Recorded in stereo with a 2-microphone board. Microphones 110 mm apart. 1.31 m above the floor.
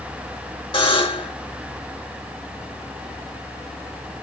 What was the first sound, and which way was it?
A buzzer, 50° left (ahead or behind).